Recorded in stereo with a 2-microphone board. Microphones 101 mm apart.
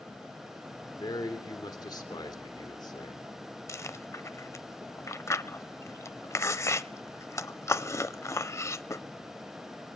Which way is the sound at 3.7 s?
30° left (ahead or behind).